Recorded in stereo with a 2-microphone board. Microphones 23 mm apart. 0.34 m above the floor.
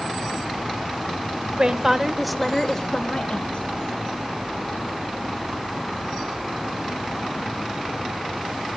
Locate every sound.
1.6 s a woman speaking: 30° right (ahead or behind), 0.9 m; by 3.7 s 50° left (ahead or behind), 1.3 m